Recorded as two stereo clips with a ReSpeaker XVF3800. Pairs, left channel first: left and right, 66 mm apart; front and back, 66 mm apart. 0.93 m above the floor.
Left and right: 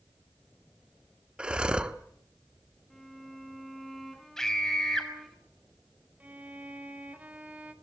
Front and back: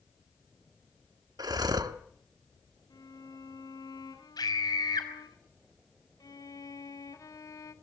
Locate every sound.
1.4 s breathing: 165° right, 1.1 m
2.9 s a violin: 5° left, 3 m
4.4 s a scream: 10° left, 5.5 m
6.2 s a violin: 25° right, 2.5 m